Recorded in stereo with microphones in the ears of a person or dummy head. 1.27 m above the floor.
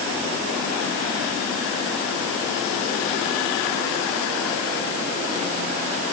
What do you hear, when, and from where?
Only background noise.